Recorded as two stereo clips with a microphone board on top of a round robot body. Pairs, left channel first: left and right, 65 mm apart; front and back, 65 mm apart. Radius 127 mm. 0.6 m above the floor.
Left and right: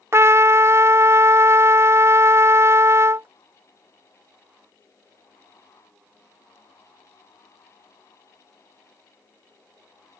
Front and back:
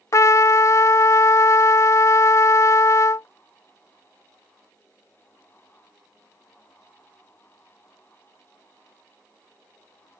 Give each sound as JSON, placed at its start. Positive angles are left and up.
{"t": 0.1, "sound": "a trumpet", "azimuth_deg": -40}